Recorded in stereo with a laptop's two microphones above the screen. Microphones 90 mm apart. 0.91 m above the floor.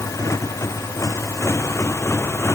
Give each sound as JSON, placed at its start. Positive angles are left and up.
{"t": 0.0, "sound": "a motorcycle", "side_deg": 35}